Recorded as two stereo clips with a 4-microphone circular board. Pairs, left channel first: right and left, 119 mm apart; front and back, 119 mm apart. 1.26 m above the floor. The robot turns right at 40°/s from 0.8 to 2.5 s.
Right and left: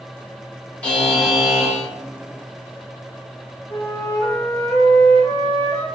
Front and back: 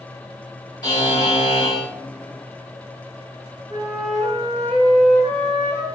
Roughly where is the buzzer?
Ahead.